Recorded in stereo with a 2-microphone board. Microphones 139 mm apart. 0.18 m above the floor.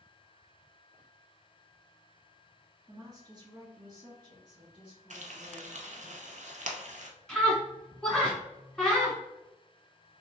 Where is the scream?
5° left (ahead or behind), 1.5 m.